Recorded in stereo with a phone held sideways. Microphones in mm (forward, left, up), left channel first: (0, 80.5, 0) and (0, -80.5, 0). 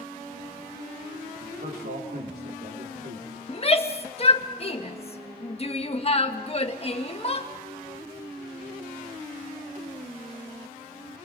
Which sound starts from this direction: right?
A man speaking, at 1.4 s.